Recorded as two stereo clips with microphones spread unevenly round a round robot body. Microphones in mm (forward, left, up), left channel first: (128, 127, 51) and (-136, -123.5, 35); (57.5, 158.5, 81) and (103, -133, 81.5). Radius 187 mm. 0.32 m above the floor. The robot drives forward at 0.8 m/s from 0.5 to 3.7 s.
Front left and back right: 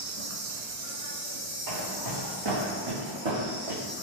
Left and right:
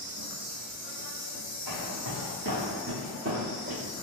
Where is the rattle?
No rattle in this recording.